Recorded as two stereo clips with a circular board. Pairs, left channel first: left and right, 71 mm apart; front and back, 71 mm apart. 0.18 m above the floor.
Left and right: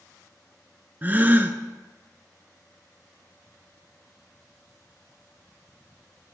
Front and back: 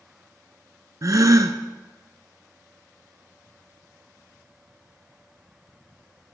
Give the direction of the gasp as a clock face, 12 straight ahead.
5 o'clock.